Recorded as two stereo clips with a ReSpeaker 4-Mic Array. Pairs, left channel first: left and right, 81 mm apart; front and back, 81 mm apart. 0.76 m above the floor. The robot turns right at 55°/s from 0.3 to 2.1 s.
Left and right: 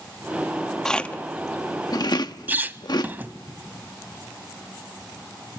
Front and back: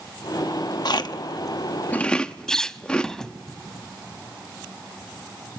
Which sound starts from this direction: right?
A squeak, at 2.5 s.